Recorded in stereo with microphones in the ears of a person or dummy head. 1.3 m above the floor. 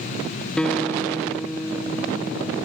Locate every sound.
0.6 s a guitar: 5° left (ahead or behind), 0.5 m